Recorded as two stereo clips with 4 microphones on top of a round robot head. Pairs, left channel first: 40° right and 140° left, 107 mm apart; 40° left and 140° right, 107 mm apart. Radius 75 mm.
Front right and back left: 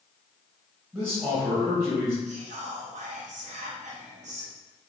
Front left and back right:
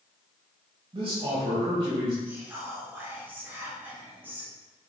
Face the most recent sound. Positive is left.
turn(degrees=145)